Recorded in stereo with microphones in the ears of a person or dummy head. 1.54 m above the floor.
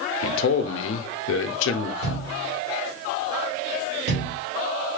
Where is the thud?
65° right (ahead or behind), 1.9 m.